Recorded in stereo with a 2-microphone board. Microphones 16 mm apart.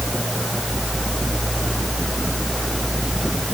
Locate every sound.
Only background noise.